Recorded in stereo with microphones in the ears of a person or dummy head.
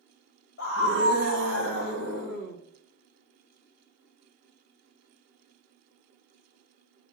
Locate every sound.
0.6 s a scream: 75° left (ahead or behind), 1.8 m; by 2.6 s 60° left (ahead or behind), 2.5 m